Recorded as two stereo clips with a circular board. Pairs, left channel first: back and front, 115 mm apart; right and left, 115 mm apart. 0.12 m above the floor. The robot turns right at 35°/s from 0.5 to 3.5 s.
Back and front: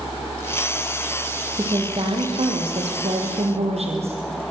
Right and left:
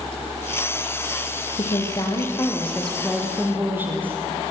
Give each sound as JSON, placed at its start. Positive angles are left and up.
{"t": 1.6, "sound": "a woman speaking", "azimuth_deg": -50, "distance_m": 3.5}